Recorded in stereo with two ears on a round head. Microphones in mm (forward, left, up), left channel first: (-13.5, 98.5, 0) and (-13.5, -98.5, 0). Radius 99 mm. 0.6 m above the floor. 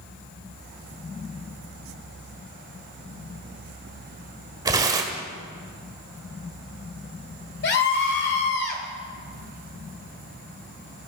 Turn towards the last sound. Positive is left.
turn(degrees=55)  # may be behind; listen again after turning